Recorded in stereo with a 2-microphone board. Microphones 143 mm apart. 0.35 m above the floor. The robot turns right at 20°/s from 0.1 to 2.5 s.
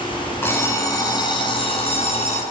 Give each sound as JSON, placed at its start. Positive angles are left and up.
{"t": 0.4, "sound": "an alarm clock", "azimuth_deg": 15, "distance_m": 2.5}